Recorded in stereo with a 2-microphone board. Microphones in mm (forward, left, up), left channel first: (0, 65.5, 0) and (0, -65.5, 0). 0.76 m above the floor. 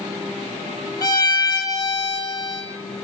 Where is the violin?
30° left (ahead or behind), 0.6 m.